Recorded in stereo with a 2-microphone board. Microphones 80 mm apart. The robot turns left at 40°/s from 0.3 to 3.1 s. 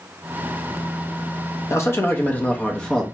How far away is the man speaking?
About 0.7 m.